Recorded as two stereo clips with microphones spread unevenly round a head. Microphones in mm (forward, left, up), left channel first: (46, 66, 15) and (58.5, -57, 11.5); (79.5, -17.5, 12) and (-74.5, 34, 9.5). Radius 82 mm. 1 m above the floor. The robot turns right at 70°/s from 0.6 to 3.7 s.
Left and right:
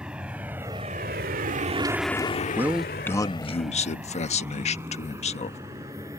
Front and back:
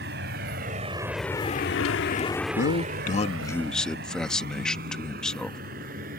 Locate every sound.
0.0 s a vehicle: 170° right; by 6.2 s 160° right
2.6 s a man speaking: 15° right; by 5.6 s 65° left